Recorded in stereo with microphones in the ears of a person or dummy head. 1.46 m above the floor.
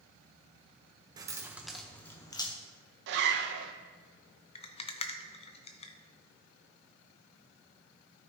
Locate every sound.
1.2 s keys jangling: 25° right (ahead or behind), 0.8 m; by 2.5 s 25° left (ahead or behind), 0.9 m
3.1 s a zipper: 65° right (ahead or behind), 1.1 m
4.5 s a rattle: 30° left (ahead or behind), 0.6 m